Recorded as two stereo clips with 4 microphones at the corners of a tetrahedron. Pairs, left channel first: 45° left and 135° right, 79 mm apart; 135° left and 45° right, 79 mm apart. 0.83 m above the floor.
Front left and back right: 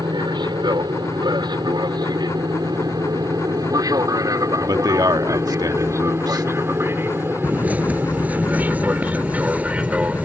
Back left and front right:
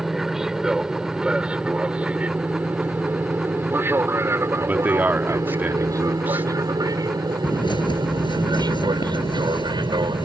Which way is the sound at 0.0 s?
130° right.